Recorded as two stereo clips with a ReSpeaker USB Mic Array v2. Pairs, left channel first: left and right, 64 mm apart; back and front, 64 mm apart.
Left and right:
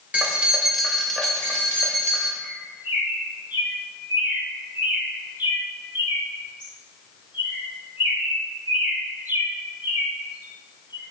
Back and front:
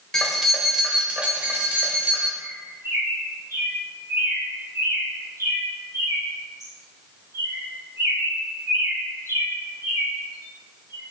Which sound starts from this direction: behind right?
Keys jangling, at 0.1 s.